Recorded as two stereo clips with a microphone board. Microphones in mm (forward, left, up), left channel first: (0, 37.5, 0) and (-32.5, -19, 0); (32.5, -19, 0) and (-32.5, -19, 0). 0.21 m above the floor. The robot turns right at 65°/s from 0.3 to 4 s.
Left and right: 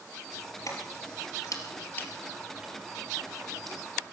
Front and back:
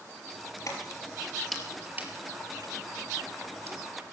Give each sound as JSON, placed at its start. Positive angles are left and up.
{"t": 0.7, "sound": "keys jangling", "azimuth_deg": 35, "distance_m": 3.0}